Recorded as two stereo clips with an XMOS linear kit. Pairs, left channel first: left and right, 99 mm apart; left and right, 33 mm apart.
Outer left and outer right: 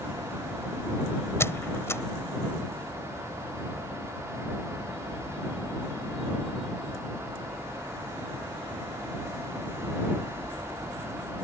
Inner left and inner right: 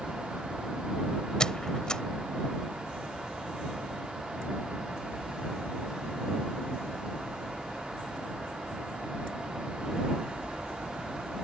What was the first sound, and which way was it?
A squeak, 25° left (ahead or behind).